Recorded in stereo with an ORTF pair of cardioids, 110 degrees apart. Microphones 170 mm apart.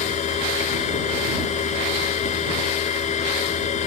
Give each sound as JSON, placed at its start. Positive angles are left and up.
{"t": 0.0, "sound": "a machine running", "azimuth_deg": 45}